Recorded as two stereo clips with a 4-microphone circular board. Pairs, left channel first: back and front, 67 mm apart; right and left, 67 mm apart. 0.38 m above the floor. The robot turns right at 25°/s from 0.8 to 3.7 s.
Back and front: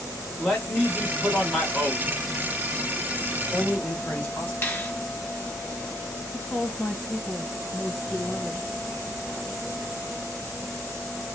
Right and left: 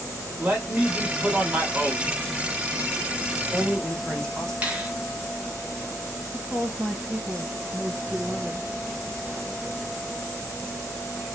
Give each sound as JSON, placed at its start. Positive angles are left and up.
{"t": 0.4, "sound": "a man speaking", "azimuth_deg": 95, "distance_m": 1.1}
{"t": 3.3, "sound": "a man speaking", "azimuth_deg": -175, "distance_m": 1.1}
{"t": 4.6, "sound": "a finger snap", "azimuth_deg": 145, "distance_m": 0.8}
{"t": 6.3, "sound": "a woman speaking", "azimuth_deg": 125, "distance_m": 1.5}